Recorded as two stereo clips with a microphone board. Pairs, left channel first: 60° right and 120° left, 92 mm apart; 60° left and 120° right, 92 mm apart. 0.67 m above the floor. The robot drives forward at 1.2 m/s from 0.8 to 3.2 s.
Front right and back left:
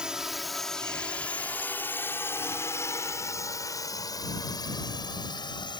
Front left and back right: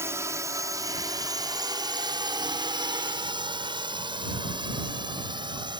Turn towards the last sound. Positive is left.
turn(degrees=-90)